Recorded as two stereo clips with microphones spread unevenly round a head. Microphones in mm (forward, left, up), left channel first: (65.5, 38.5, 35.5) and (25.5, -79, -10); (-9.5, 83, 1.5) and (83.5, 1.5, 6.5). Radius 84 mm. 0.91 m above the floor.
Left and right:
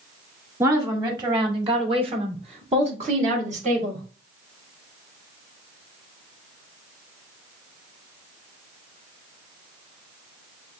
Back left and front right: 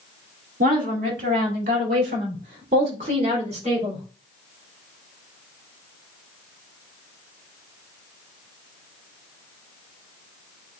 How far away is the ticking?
I don't hear ticking.